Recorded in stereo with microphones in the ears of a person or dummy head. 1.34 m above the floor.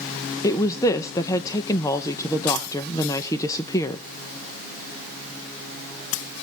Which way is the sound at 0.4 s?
20° left (ahead or behind).